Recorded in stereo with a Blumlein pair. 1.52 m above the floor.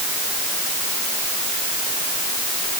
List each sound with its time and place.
Only background noise.